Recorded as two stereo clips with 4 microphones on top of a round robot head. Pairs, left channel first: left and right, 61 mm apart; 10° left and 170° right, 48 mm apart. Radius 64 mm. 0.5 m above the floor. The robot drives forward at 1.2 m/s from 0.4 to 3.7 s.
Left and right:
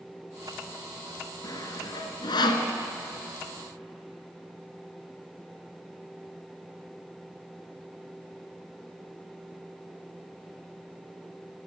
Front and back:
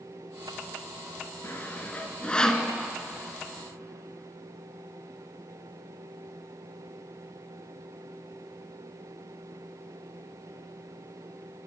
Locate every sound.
1.4 s sawing: 60° left, 2.5 m; by 2.7 s 95° left, 2.5 m